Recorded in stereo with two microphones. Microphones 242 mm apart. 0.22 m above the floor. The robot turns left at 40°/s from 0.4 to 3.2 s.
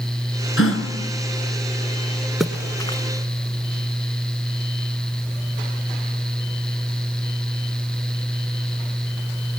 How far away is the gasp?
About 3.5 m.